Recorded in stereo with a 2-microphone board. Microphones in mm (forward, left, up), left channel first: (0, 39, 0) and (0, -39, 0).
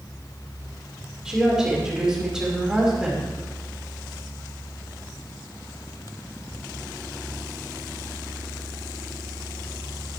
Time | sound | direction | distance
1.2 | a woman speaking | 10° right (ahead or behind) | 5 m